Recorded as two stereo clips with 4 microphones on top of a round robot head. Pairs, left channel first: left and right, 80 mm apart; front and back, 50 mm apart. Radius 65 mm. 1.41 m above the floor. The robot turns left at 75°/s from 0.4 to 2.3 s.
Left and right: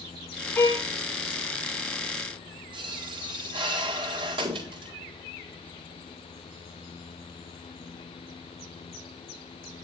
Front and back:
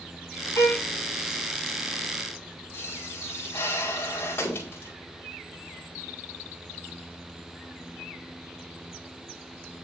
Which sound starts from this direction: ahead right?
A pop, at 2.7 s.